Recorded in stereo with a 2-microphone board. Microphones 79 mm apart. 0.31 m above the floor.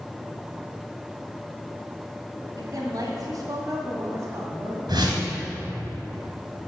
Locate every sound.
2.6 s a woman speaking: 55° right (ahead or behind), 2.5 m; by 4.8 s 25° right (ahead or behind), 2 m
4.9 s a whoosh: 70° right (ahead or behind), 3 m